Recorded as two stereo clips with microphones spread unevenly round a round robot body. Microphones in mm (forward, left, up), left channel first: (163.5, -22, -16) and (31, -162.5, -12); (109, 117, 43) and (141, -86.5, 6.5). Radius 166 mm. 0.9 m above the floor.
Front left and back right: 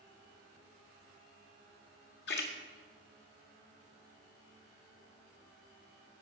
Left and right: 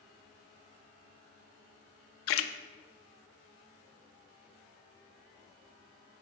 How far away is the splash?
About 0.6 m.